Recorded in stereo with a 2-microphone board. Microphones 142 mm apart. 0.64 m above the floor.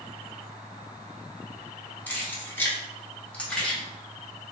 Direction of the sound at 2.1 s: 10° left (ahead or behind).